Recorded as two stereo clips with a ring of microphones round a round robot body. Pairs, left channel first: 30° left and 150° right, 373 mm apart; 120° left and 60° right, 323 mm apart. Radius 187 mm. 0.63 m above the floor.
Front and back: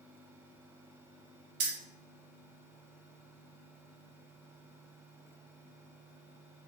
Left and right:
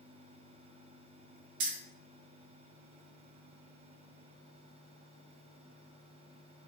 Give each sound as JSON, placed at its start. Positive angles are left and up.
{"t": 1.6, "sound": "keys jangling", "azimuth_deg": -100, "distance_m": 0.6}